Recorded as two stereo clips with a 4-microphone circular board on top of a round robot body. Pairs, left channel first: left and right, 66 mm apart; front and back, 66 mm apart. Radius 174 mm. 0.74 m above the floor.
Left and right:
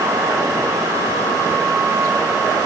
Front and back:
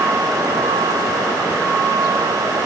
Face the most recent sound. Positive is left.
No sound to turn to.